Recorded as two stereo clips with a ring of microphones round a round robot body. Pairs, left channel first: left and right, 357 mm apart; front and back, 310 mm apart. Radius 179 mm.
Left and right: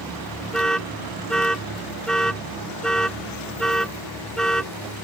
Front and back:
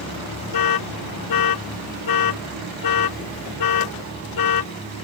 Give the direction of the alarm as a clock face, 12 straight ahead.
12 o'clock.